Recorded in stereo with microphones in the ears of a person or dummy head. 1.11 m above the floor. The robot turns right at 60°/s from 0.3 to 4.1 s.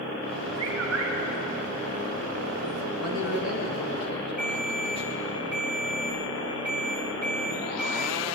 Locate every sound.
0.6 s a bird: 105° right, 2.5 m; by 1.1 s 75° right, 2.5 m
3.0 s a man speaking: 90° left, 1.9 m; by 5.3 s 155° left, 1.9 m
4.4 s a ringtone: 5° right (ahead or behind), 2.0 m